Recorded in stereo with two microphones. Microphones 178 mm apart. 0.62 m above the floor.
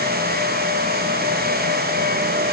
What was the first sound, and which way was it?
Only background noise.